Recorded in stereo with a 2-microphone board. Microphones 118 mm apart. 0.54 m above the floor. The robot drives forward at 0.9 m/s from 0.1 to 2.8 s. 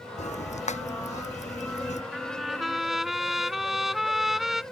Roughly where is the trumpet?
Centre.